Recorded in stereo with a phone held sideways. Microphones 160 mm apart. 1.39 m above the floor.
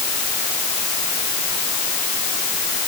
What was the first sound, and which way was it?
Only background noise.